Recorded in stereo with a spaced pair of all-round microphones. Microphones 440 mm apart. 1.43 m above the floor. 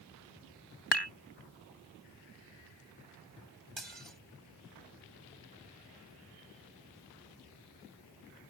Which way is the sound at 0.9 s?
65° left (ahead or behind).